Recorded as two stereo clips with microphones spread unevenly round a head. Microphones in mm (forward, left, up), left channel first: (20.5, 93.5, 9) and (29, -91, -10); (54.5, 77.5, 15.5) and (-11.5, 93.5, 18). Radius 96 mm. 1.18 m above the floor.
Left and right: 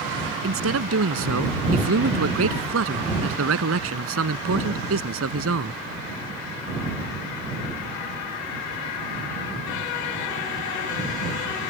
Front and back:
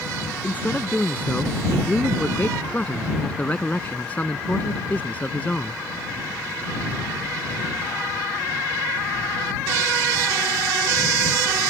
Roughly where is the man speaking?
Right.